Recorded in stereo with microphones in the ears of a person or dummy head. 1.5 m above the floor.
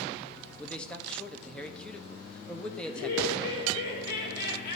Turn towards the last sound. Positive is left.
turn(degrees=60)  # may be behind; listen again after turning